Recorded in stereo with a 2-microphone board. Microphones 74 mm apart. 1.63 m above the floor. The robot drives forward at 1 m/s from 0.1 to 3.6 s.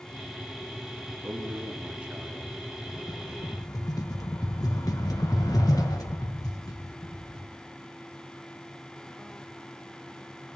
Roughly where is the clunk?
I don't hear a clunk.